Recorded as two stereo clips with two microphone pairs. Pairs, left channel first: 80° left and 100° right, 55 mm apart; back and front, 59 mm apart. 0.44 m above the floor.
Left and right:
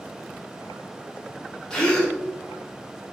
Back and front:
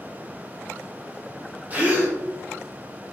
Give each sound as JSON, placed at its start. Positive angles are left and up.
{"t": 1.7, "sound": "a gasp", "azimuth_deg": 20, "distance_m": 0.7}